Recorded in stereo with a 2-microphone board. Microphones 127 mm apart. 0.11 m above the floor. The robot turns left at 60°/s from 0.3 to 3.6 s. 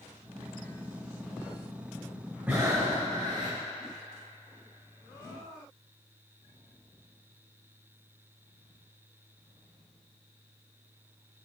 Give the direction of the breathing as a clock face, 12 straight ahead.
12 o'clock.